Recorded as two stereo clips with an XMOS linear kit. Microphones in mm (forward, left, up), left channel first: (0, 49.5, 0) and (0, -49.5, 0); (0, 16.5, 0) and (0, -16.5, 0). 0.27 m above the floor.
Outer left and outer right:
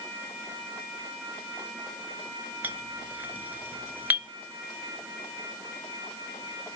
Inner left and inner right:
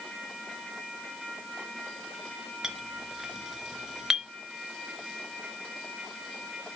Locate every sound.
2.6 s a clink: 15° right (ahead or behind), 0.9 m